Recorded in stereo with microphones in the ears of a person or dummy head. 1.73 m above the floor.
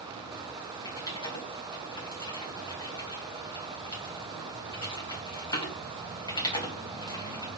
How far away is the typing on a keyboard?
About 1.8 m.